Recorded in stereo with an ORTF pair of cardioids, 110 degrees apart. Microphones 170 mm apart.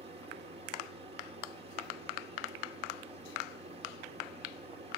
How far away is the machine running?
About 2.5 m.